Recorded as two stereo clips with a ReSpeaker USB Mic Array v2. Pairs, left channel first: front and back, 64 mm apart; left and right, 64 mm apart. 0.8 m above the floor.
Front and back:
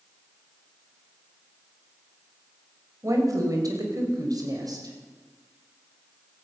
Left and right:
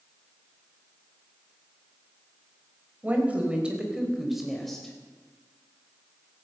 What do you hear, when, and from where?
3.0 s a woman speaking: 155° right, 3.5 m; by 5.0 s 175° left, 3.5 m